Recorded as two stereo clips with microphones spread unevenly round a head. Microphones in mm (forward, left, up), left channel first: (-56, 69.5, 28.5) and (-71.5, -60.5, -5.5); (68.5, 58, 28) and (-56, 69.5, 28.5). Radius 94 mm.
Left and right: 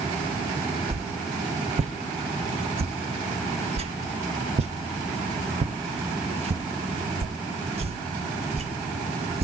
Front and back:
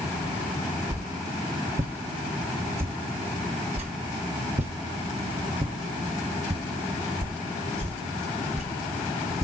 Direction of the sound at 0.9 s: 135° right.